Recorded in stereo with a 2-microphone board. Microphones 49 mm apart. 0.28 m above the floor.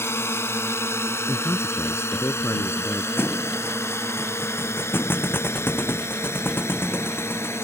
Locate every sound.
0.0 s a drone: 60° left (ahead or behind); by 7.6 s 65° left (ahead or behind)
1.3 s a man speaking: 65° left (ahead or behind)
3.2 s a thud: 50° left (ahead or behind)